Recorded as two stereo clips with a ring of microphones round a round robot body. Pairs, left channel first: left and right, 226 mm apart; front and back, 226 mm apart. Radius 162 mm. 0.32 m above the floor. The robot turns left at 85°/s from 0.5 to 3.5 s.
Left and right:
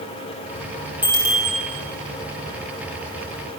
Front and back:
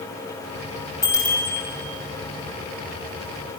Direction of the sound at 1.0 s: 5° right.